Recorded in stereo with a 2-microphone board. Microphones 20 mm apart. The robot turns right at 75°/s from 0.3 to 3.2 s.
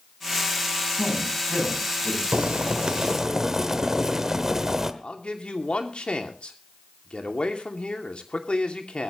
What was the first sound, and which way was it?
A man speaking, 10° right.